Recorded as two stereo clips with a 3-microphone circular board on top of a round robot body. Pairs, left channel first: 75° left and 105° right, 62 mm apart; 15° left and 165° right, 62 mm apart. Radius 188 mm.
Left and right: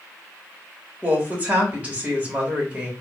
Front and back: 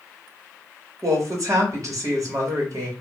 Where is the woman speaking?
170° right, 1.7 m.